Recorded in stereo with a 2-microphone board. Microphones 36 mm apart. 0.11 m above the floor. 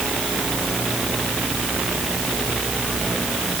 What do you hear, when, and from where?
Only background noise.